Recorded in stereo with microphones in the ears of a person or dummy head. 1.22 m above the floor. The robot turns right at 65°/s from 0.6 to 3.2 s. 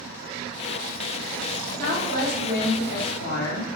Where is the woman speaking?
40° right, 1.4 m; by 3.7 s 50° left, 1.4 m.